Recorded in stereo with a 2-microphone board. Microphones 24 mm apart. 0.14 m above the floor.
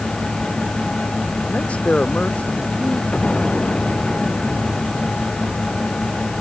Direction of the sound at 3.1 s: 55° left (ahead or behind).